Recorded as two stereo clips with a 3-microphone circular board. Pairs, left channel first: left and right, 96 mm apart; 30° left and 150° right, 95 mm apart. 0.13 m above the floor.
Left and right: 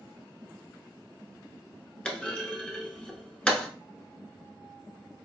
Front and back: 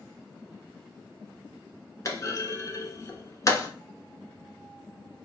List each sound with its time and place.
2.0 s a clunk: 20° left, 0.7 m